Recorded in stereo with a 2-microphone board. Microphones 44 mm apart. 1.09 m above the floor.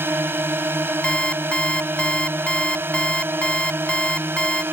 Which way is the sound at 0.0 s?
55° right (ahead or behind).